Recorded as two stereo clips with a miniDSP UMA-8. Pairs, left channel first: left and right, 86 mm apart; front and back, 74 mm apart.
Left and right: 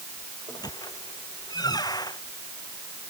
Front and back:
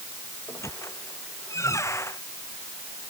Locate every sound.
0.5 s a squeak: 50° left